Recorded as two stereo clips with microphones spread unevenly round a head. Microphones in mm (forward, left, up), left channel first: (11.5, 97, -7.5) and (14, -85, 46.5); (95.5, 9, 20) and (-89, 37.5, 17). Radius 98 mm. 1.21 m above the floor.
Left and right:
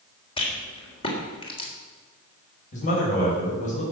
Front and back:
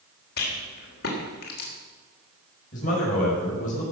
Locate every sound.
0.4 s a rattle: 25° left, 3.5 m
2.7 s a man speaking: 40° left, 5.5 m